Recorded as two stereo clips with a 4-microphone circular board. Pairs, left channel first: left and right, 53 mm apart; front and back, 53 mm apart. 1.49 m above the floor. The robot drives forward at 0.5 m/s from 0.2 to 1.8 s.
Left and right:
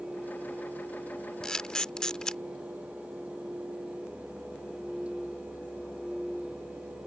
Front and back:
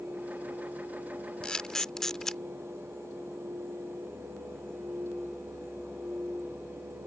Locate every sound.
1.4 s a camera shutter: 35° left; by 2.4 s 55° left